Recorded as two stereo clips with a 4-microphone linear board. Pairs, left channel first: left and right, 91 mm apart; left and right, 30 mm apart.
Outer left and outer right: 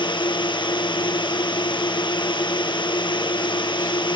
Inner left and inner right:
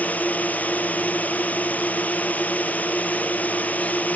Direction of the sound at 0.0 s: 65° left (ahead or behind).